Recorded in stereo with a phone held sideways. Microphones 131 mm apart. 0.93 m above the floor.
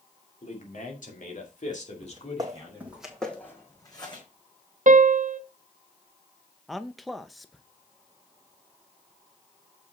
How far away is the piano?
About 0.6 m.